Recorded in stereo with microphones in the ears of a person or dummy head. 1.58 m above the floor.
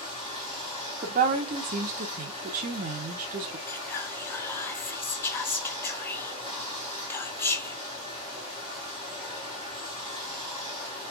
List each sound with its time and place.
0.0 s running water: 10° right (ahead or behind), 2.5 m
1.0 s a woman speaking: 45° right (ahead or behind), 0.8 m
3.7 s whispering: 10° left (ahead or behind), 0.7 m